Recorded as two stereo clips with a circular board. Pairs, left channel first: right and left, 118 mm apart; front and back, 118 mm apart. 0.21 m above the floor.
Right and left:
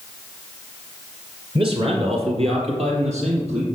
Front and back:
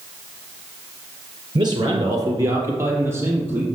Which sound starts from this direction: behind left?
A man speaking, at 1.6 s.